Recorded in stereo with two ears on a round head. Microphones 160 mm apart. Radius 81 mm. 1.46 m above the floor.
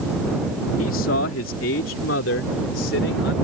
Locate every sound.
0.8 s a man speaking: 80° left; by 3.3 s 70° left (ahead or behind)